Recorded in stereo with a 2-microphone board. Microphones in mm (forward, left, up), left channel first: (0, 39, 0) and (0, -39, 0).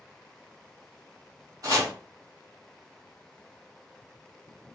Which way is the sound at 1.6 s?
50° right (ahead or behind).